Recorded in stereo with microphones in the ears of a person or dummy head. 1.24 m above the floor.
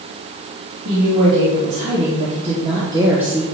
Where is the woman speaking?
40° right (ahead or behind), 2 m; by 3.4 s 5° left (ahead or behind), 0.6 m.